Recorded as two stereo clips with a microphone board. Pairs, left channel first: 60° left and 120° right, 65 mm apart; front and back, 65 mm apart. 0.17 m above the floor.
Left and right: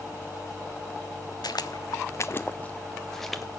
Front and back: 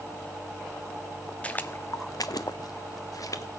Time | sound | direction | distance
1.4 | footsteps | 70° left | 0.6 m